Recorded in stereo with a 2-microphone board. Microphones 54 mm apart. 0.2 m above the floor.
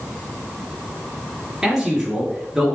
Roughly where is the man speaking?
Centre.